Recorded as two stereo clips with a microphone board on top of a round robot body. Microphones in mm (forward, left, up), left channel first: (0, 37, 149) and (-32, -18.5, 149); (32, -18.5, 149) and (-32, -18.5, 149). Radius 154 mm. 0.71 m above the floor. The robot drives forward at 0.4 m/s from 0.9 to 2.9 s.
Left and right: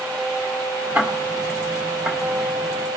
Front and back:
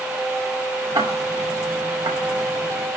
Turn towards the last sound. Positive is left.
turn(degrees=170)